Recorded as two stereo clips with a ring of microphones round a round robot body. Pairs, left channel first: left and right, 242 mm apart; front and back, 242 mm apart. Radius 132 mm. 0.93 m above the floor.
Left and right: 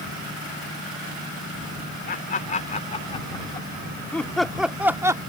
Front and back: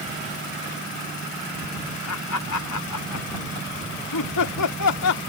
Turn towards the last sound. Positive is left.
turn(degrees=-15)